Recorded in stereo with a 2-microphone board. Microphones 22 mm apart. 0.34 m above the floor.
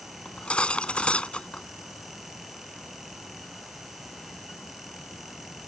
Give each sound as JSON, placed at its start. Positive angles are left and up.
{"t": 0.2, "sound": "cutlery clinking", "side_deg": 70}